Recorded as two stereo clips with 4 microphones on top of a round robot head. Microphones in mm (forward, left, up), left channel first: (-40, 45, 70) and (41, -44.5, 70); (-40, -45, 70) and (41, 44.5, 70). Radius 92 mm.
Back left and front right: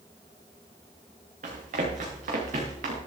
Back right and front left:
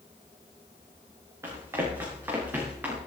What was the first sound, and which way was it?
Running footsteps, 20° right.